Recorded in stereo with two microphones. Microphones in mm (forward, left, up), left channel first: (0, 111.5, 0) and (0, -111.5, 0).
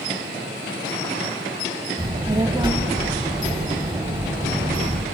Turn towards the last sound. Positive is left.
turn(degrees=-20)  # may be behind; listen again after turning